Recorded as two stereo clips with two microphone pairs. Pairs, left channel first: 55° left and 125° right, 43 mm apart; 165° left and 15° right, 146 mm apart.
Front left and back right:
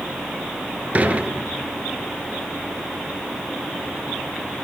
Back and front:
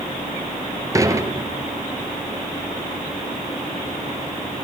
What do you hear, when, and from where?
0.9 s dishes clattering: 75° right, 1.4 m